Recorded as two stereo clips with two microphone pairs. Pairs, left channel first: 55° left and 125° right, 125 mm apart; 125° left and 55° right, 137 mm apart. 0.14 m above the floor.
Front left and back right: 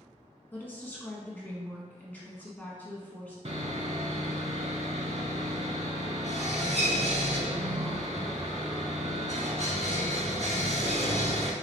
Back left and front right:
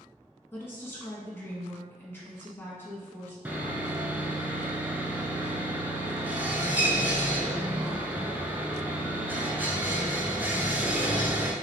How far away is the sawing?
About 0.5 m.